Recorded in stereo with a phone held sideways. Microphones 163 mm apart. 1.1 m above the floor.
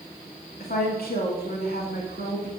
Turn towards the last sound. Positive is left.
turn(degrees=75)  # may be behind; listen again after turning